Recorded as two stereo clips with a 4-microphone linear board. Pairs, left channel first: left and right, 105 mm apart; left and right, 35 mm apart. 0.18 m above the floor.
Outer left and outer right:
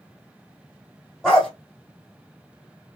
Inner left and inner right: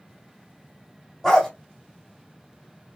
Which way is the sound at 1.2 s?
Centre (ahead or behind).